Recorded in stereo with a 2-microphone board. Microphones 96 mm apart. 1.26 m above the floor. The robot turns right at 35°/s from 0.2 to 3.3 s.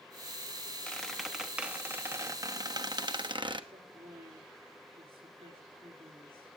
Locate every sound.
0.9 s a squeak: 170° left, 0.9 m; by 3.6 s 105° right, 0.9 m
3.7 s a woman speaking: 75° right (ahead or behind), 3.5 m